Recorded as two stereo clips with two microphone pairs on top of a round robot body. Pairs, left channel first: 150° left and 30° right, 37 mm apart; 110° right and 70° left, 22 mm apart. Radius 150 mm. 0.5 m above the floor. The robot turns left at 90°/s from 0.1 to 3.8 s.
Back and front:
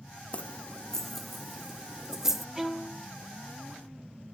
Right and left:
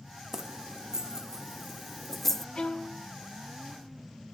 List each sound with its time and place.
0.3 s keys jangling: 115° left, 0.7 m; by 2.5 s 75° right, 0.7 m
2.5 s a violin: 95° right, 0.9 m; by 3.1 s 140° right, 0.9 m